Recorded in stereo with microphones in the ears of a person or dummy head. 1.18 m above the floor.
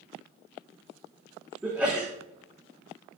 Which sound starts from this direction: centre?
A sneeze, at 1.6 s.